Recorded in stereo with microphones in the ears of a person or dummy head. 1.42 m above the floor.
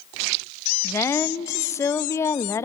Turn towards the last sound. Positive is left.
turn(degrees=15)  # may be behind; listen again after turning